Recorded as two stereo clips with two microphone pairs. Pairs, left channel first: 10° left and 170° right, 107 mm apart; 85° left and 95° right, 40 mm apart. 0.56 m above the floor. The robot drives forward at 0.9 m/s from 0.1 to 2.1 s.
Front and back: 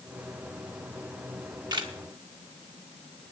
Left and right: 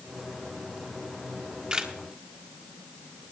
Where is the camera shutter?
135° right, 0.9 m; by 1.9 s 160° right, 1.2 m.